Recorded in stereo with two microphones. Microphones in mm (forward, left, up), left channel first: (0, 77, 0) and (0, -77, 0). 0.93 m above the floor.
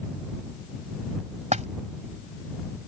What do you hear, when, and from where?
1.5 s a splash: 50° right (ahead or behind)